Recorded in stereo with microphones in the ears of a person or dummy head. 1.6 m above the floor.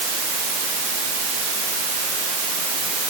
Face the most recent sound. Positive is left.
No sound to turn to.